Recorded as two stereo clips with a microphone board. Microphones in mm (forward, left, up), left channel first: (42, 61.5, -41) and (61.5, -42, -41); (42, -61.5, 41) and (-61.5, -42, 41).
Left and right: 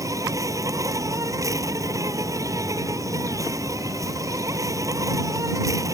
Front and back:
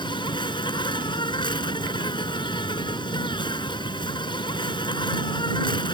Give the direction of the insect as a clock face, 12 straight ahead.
1 o'clock.